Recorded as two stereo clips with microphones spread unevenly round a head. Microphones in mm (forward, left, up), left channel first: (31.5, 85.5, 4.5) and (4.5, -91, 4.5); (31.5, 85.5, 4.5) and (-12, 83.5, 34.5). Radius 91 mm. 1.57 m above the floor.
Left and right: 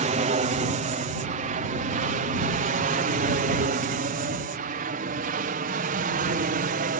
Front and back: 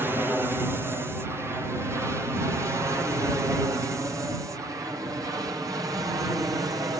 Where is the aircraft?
95° right; by 7.0 s 135° right.